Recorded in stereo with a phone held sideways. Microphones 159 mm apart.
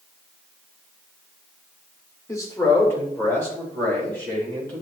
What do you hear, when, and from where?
2.3 s a man speaking: 20° left (ahead or behind), 1.0 m; by 4.8 s 10° left (ahead or behind), 2.5 m